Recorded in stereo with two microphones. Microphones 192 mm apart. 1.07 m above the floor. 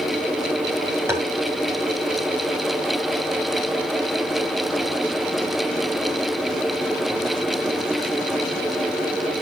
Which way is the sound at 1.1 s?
10° right (ahead or behind).